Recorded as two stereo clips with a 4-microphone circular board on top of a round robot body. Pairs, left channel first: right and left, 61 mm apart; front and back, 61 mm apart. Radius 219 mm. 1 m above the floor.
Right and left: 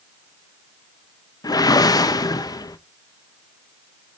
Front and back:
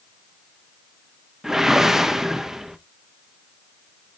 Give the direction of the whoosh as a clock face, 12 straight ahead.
3 o'clock.